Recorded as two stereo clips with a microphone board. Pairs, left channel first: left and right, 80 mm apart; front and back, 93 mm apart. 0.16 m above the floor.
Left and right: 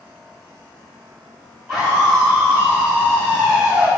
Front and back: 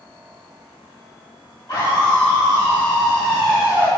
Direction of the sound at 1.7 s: 25° right.